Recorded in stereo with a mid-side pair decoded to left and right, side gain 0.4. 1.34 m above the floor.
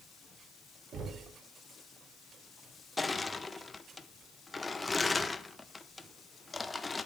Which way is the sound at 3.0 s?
30° left.